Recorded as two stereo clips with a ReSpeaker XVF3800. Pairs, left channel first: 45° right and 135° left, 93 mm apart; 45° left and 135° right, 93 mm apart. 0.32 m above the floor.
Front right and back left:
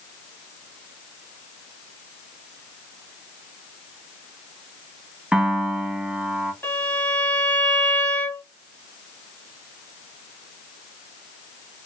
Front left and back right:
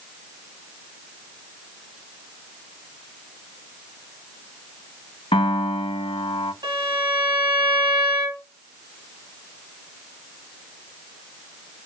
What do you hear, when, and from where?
5.3 s a piano: 55° left, 0.5 m
6.6 s a violin: 110° right, 1.5 m